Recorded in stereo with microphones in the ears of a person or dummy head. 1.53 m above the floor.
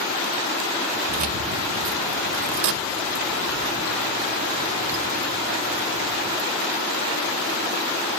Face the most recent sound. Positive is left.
turn(degrees=0)  # may be behind; listen again after turning